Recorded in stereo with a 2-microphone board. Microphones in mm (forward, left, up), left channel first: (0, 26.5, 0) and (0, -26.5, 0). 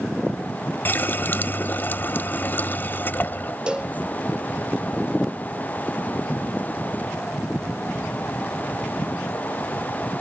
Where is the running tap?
35° left (ahead or behind).